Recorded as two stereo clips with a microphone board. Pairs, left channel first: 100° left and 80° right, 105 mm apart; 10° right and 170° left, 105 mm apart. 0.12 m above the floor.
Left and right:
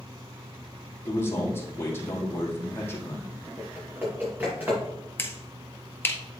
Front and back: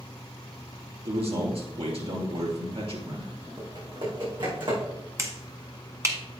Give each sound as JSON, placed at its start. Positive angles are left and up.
{"t": 1.1, "sound": "a man speaking", "azimuth_deg": 165, "distance_m": 2.5}
{"t": 3.6, "sound": "typing on a keyboard", "azimuth_deg": -150, "distance_m": 4.5}
{"t": 5.2, "sound": "a finger snap", "azimuth_deg": 140, "distance_m": 1.1}